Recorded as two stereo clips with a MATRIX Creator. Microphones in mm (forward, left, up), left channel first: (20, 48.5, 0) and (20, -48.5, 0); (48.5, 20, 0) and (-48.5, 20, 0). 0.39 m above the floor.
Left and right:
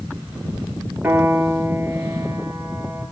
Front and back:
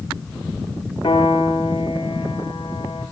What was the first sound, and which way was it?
A piano, 20° right.